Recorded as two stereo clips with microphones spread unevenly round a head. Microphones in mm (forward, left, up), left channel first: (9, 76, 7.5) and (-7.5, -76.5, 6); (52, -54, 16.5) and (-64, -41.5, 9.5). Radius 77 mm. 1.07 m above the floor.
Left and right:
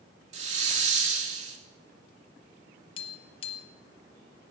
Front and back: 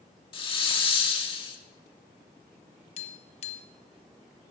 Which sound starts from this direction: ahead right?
A hiss, at 0.3 s.